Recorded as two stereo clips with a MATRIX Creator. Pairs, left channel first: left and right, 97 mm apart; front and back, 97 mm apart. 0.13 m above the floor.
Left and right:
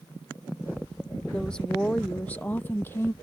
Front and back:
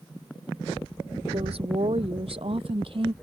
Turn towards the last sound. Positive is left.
turn(degrees=155)